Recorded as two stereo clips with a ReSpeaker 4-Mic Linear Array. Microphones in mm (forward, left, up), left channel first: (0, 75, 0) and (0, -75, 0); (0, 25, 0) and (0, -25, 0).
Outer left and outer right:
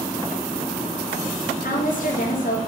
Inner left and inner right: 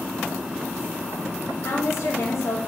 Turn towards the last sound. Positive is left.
turn(degrees=65)  # may be behind; listen again after turning